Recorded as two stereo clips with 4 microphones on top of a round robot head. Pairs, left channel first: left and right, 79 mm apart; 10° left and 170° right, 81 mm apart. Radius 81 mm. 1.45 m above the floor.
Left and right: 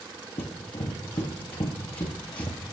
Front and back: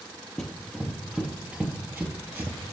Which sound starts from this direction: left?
Running footsteps, at 0.4 s.